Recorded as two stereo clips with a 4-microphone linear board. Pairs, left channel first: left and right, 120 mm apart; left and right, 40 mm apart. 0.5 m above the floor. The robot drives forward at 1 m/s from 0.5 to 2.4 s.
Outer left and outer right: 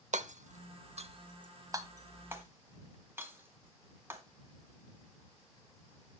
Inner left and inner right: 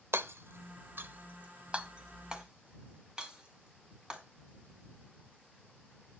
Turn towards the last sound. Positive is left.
turn(degrees=-20)  # may be behind; listen again after turning